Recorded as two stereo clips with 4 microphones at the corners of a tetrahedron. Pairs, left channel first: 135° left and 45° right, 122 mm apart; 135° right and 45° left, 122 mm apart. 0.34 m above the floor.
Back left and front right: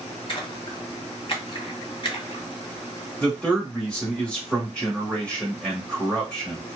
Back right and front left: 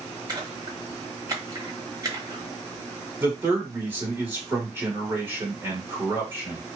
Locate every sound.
0.3 s a splash: 100° left, 0.9 m
3.2 s a man speaking: 75° left, 1.4 m